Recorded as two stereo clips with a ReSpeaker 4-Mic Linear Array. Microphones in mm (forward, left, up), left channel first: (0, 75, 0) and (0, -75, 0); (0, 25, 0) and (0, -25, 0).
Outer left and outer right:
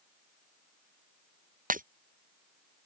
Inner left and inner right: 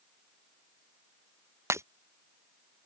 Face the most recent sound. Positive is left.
turn(degrees=-65)  # may be behind; listen again after turning